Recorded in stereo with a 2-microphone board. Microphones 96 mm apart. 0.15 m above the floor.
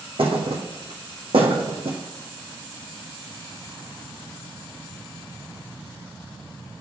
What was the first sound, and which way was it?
A thud, 75° right (ahead or behind).